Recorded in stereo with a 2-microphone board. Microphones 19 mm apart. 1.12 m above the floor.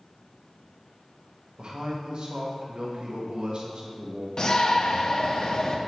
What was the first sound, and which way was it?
A man speaking, 60° right (ahead or behind).